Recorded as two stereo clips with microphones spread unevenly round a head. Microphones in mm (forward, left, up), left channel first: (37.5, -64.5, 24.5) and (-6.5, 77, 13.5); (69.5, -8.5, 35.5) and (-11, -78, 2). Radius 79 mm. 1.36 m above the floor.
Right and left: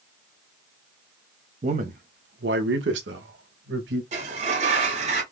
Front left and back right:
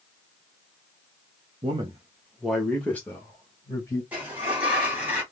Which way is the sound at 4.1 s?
120° left.